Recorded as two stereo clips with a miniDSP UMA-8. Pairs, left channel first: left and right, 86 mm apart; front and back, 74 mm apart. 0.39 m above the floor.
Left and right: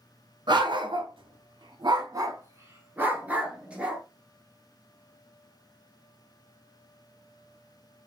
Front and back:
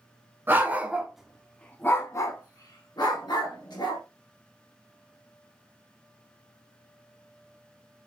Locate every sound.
0.5 s a dog barking: 120° right, 1.0 m; by 4.0 s 10° right, 1.8 m